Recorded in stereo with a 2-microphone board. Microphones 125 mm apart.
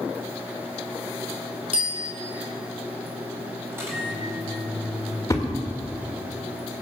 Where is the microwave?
20° right (ahead or behind), 6.5 m.